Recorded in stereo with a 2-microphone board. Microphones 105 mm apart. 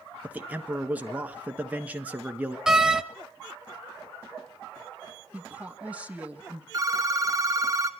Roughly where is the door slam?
Centre.